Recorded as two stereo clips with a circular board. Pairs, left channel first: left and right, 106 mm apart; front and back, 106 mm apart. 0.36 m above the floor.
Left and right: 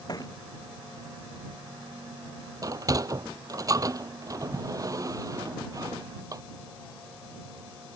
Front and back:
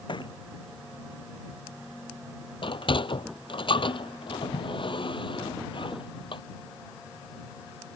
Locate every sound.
0.1 s a thud: 40° left
2.6 s a sliding door: 35° right